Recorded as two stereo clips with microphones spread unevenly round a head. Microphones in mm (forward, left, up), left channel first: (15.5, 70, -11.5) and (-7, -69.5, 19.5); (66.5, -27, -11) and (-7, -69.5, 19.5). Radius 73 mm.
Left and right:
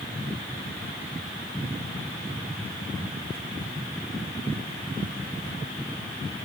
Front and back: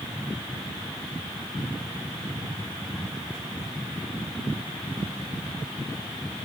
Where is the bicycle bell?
I don't hear a bicycle bell.